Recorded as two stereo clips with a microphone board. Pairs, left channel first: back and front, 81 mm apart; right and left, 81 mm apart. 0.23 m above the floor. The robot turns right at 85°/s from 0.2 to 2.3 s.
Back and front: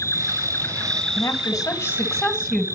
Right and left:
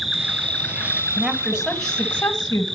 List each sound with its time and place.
0.0 s an insect: 175° right, 2.0 m; by 2.8 s 5° left, 2.0 m
1.2 s a woman speaking: 140° left, 1.4 m; by 2.6 s 120° right, 1.4 m